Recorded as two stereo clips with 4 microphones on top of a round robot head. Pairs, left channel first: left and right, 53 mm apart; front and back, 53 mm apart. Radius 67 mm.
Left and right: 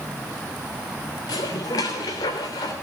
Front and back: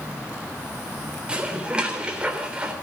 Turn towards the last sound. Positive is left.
turn(degrees=110)